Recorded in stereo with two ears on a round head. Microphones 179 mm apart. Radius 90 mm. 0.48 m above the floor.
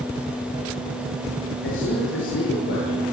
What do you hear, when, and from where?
1.6 s a man speaking: 65° left (ahead or behind), 8 m